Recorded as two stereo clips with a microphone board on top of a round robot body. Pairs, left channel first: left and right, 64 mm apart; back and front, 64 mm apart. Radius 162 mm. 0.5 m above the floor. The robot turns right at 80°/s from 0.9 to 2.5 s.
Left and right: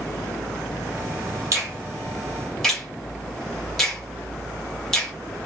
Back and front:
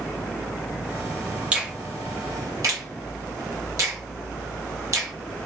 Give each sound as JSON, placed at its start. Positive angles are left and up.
{"t": 1.5, "sound": "a finger snap", "azimuth_deg": -70, "distance_m": 1.3}